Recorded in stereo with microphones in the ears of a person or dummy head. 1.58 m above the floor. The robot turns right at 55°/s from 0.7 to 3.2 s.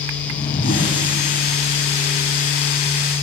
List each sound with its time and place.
0.2 s a whoosh: 25° left (ahead or behind), 1.5 m